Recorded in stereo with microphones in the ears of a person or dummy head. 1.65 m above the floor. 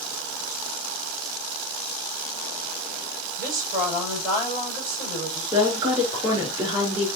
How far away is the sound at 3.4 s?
About 7 m.